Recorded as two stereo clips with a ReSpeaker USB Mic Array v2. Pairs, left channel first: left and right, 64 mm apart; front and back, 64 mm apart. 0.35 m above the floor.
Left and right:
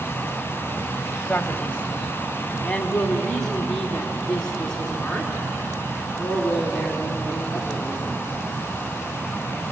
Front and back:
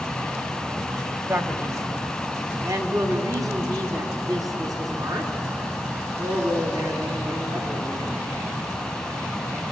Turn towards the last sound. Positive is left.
turn(degrees=175)